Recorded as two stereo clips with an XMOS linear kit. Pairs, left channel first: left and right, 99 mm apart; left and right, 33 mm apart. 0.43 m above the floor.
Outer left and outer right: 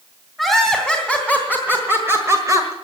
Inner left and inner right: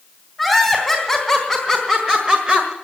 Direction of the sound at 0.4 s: 5° right (ahead or behind).